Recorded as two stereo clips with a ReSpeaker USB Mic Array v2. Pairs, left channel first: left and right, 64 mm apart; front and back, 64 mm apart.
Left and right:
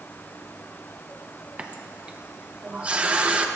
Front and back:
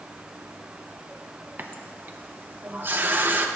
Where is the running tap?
150° right, 0.8 m.